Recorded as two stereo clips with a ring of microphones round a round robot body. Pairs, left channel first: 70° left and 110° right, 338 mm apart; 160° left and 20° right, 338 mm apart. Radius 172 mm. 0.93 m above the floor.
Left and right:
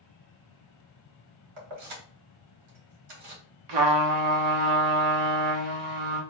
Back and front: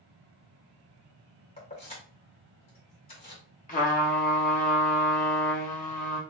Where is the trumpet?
135° right, 1.1 m.